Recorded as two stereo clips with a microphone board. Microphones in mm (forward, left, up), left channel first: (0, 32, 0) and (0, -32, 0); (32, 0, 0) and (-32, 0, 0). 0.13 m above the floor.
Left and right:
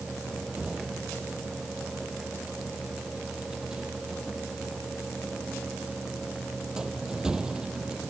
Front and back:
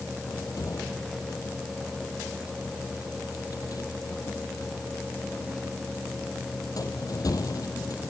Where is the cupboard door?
15° right.